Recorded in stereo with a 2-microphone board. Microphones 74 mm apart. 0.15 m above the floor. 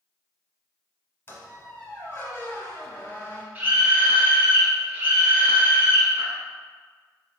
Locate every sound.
1.3 s a squeak: 30° left (ahead or behind), 0.9 m
3.5 s a scream: 25° right (ahead or behind), 1.3 m